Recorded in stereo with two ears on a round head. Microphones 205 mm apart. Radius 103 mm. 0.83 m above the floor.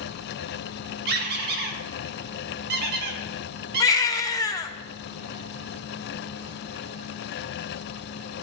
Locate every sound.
1.1 s a squeak: 45° right (ahead or behind), 1.0 m
3.8 s a baby crying: 15° left (ahead or behind), 0.5 m